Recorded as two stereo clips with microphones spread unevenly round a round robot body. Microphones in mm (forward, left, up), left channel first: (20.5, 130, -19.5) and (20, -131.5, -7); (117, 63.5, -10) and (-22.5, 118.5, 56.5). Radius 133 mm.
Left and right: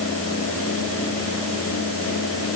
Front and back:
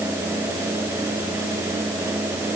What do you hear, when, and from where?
Only background noise.